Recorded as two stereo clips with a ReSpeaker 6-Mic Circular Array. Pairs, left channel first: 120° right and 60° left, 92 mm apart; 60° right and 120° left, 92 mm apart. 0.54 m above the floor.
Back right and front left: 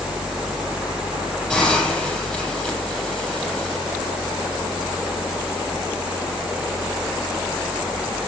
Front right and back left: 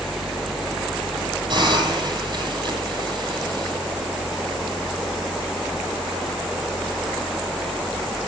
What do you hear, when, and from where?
1.5 s a hiss: 160° left, 9.5 m